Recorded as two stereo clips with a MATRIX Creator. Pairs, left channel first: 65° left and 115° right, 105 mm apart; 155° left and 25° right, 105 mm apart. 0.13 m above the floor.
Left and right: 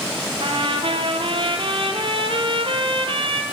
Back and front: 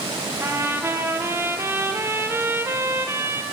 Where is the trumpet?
85° right, 3 m.